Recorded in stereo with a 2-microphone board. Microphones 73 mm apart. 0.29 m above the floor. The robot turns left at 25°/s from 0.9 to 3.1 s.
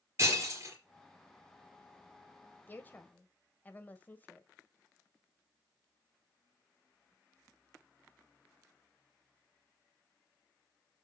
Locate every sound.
0.2 s breaking glass: 40° right (ahead or behind), 4 m
2.7 s a woman speaking: 25° left (ahead or behind), 1.4 m